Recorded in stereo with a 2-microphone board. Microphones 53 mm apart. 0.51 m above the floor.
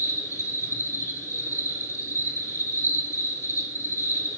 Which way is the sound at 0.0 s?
70° left (ahead or behind).